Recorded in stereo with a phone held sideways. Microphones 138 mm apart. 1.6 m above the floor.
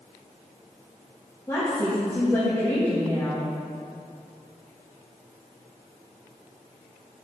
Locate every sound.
1.5 s a woman speaking: 20° left (ahead or behind), 2.0 m